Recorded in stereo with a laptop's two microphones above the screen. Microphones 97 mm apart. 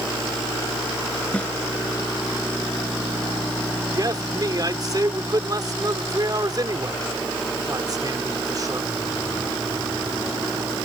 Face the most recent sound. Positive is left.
turn(degrees=-45)  # may be behind; listen again after turning